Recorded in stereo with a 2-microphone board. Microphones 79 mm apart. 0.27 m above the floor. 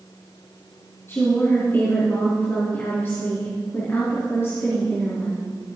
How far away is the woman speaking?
About 3 m.